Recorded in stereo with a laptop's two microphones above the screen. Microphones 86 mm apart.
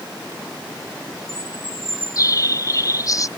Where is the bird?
40° left (ahead or behind).